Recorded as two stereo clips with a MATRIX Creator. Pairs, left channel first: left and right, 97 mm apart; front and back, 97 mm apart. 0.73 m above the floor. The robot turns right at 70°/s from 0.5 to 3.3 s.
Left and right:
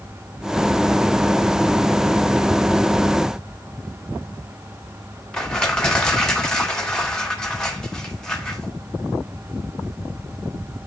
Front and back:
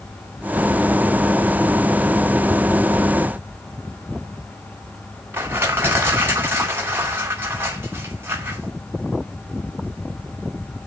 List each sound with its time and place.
5.3 s crushing: 160° left, 1.1 m